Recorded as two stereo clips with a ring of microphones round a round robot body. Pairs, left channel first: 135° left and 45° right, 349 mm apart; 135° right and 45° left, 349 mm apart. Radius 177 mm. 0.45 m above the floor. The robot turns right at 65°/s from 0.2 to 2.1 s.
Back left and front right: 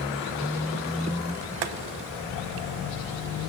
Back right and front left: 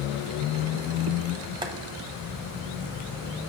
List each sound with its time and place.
1.6 s boiling: 35° right, 0.7 m; by 1.7 s 25° right, 0.7 m